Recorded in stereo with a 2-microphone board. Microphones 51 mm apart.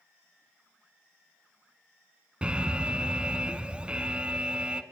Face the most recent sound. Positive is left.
turn(degrees=-20)  # may be behind; listen again after turning